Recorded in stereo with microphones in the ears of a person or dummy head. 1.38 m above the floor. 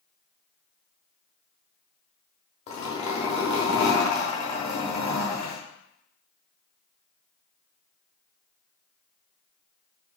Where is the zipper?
35° left (ahead or behind), 1.0 m.